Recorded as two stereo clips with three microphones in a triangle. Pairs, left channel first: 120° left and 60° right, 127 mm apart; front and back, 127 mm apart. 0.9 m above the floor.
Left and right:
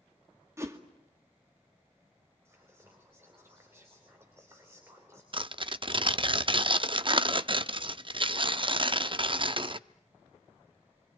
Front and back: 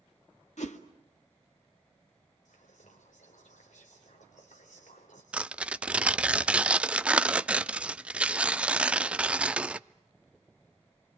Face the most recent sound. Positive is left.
turn(degrees=-100)